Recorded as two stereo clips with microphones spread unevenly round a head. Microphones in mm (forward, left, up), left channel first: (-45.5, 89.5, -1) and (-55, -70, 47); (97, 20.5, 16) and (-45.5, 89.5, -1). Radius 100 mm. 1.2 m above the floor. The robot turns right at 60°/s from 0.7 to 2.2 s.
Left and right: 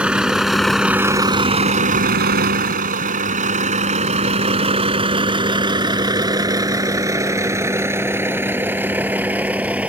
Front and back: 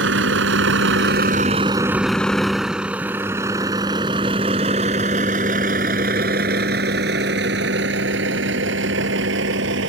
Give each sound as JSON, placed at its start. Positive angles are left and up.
{"t": 0.0, "sound": "a vehicle", "azimuth_deg": -175}